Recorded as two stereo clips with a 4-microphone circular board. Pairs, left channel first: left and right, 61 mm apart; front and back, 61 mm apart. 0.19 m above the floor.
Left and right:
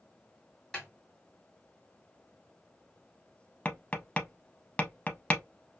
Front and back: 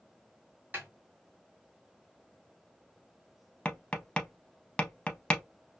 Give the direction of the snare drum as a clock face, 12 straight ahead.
7 o'clock.